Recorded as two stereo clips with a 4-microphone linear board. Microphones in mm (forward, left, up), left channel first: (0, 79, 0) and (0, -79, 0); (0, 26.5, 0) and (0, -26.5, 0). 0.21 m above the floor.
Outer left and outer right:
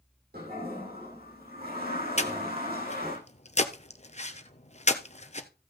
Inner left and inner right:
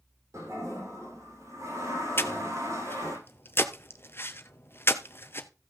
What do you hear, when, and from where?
0.3 s a toilet flushing: 75° right (ahead or behind), 7.5 m
2.2 s breathing: 45° left (ahead or behind), 0.9 m